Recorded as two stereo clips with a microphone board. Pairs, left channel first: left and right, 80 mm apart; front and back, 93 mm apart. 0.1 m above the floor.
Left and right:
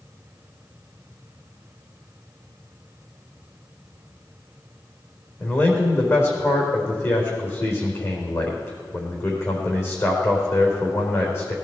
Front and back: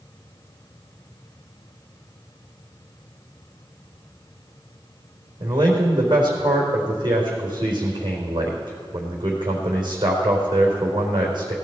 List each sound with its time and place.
5.4 s a man speaking: 145° left, 4 m